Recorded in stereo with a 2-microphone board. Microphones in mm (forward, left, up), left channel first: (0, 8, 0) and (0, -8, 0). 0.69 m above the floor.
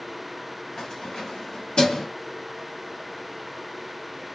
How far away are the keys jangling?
About 0.8 m.